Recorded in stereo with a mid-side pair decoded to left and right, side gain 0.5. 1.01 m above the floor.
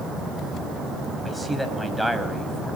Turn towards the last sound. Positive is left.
turn(degrees=0)